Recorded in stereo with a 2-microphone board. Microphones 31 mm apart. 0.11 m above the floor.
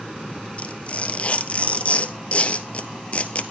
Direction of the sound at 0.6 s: 45° left (ahead or behind).